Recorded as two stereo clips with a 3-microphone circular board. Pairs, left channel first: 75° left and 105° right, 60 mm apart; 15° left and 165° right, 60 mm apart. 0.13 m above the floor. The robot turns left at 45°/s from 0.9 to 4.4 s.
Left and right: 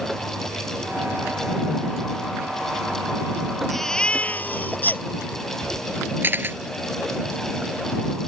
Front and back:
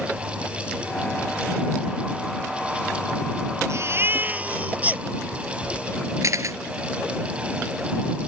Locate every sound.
3.7 s a baby crying: 160° left; by 5.0 s 130° left
6.2 s a camera shutter: 155° right